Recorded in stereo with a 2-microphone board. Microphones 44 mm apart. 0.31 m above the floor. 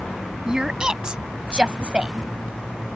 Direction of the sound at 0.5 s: 15° right (ahead or behind).